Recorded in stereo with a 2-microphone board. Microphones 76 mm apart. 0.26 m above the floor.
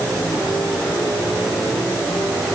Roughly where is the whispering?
No whispering in this recording.